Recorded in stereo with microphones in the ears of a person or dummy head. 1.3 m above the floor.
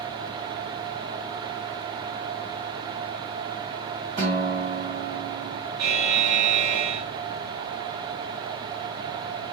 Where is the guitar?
35° right (ahead or behind), 1.3 m.